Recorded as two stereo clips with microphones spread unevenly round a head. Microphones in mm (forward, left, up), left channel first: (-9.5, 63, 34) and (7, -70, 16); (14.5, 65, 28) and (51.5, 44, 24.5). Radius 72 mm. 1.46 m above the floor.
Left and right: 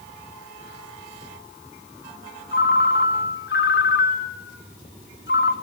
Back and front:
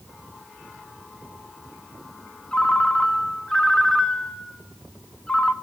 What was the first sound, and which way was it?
A ringtone, 75° left.